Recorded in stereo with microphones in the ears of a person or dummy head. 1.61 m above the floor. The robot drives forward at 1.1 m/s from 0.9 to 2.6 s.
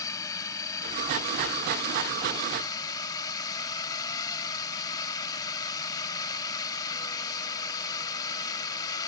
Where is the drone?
15° left (ahead or behind); by 9.1 s 20° left (ahead or behind).